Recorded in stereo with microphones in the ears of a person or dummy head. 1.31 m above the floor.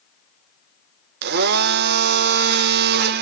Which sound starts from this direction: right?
A blender, at 1.2 s.